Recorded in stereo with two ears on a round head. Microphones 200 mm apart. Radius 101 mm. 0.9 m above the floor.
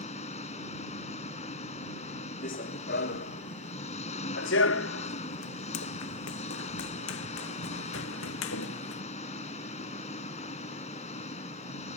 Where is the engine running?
35° left (ahead or behind).